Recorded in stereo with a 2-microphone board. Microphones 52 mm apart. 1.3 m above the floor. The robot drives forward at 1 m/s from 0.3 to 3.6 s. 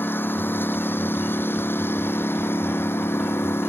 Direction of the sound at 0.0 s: 45° left (ahead or behind).